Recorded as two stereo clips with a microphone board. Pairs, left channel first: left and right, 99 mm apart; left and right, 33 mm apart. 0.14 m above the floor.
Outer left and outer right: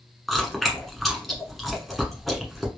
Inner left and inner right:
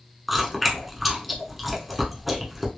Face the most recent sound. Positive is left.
turn(degrees=0)  # may be behind; listen again after turning